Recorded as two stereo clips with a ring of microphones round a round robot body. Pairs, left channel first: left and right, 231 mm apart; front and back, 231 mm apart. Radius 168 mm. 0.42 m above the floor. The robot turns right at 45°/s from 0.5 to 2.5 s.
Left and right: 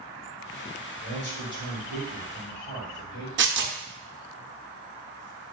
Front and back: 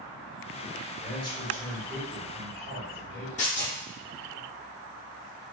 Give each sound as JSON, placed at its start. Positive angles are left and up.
{"t": 1.0, "sound": "a man speaking", "azimuth_deg": 55, "distance_m": 1.8}
{"t": 3.4, "sound": "tearing paper", "azimuth_deg": -60, "distance_m": 0.6}